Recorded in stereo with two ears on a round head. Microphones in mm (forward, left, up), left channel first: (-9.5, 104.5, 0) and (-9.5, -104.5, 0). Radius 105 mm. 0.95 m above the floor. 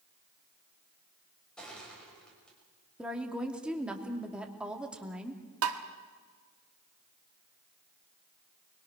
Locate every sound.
1.6 s crushing: 5° left (ahead or behind), 5.5 m
3.0 s a woman speaking: 5° right (ahead or behind), 2.5 m
5.6 s tapping: 60° right (ahead or behind), 1.5 m